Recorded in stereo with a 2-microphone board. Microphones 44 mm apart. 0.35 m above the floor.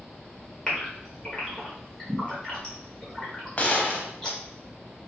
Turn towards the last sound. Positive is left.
turn(degrees=35)  # may be behind; listen again after turning